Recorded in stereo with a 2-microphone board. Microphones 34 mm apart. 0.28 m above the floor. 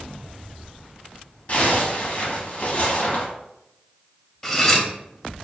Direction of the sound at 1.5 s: 45° left (ahead or behind).